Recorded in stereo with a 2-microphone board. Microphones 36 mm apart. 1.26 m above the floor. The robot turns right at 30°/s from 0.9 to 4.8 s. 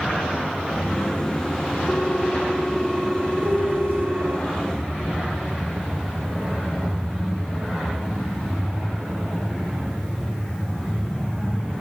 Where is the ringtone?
160° left, 1.3 m; by 4.4 s 125° right, 1.3 m.